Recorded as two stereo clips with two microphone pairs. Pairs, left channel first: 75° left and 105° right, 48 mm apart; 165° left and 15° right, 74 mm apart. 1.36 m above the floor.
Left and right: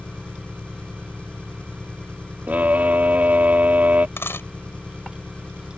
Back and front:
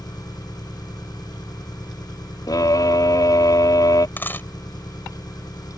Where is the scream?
160° right.